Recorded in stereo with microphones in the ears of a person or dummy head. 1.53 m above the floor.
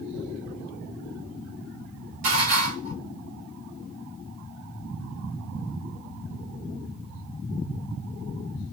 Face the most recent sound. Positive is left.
turn(degrees=-40)  # may be behind; listen again after turning